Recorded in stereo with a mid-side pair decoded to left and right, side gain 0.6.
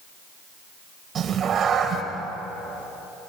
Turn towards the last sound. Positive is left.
turn(degrees=-40)